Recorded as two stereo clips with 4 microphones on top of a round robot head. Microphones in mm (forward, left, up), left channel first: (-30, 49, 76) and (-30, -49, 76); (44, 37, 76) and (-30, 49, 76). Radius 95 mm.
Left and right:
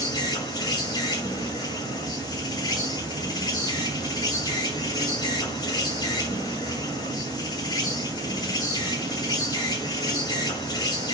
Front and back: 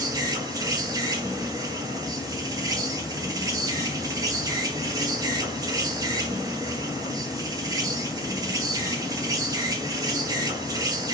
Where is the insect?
135° left, 2.5 m.